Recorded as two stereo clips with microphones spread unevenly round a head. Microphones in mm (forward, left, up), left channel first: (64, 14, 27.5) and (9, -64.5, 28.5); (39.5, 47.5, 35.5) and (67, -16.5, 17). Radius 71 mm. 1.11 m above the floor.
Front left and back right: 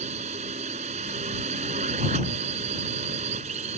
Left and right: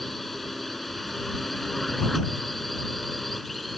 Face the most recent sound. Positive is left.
turn(degrees=-160)